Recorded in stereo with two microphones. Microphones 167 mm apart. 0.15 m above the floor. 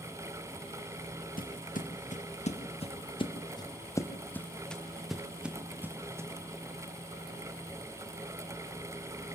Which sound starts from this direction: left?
Footsteps, at 1.4 s.